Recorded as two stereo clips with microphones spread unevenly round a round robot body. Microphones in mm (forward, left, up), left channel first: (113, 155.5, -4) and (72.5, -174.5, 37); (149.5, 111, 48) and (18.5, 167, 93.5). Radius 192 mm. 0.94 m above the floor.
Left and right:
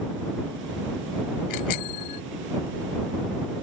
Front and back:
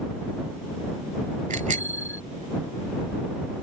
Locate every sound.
1.5 s a bicycle bell: 130° left